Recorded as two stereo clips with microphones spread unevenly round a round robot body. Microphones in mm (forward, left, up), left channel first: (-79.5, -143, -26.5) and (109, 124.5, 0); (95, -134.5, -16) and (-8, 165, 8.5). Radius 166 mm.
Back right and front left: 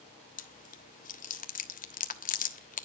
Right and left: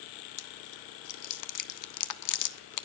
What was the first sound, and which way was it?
Chewing, 65° right.